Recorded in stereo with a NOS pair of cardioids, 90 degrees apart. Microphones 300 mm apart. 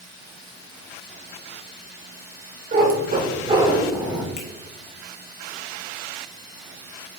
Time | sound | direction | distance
2.7 | a cat meowing | 35° right | 3.5 m
4.4 | a finger snap | 40° left | 3 m